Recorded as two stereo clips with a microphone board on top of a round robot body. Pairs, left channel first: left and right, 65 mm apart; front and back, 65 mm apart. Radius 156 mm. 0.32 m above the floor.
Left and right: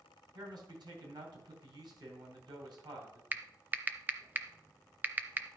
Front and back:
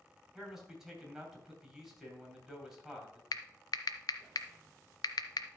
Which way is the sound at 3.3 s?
25° right.